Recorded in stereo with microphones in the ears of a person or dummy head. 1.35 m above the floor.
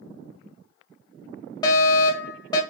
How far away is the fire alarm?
About 0.7 m.